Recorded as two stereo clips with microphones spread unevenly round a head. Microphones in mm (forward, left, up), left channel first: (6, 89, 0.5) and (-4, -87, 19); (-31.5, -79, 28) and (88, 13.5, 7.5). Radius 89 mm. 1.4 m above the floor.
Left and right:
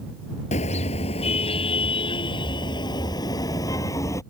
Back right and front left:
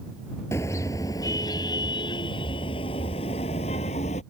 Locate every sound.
0.5 s a car horn: 145° left; by 4.2 s 160° left